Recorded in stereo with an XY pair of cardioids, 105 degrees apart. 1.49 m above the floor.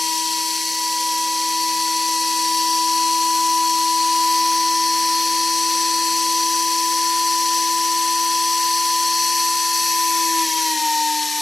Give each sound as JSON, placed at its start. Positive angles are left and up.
{"t": 0.0, "sound": "a machine running", "azimuth_deg": 20, "distance_m": 1.6}